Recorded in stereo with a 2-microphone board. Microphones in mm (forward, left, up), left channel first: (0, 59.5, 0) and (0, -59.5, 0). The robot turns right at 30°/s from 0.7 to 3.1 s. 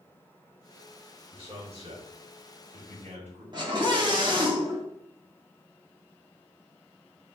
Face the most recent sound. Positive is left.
turn(degrees=-40)  # may be behind; listen again after turning